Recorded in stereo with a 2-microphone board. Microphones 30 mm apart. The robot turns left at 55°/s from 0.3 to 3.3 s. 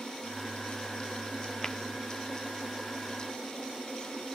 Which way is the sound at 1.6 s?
20° left (ahead or behind).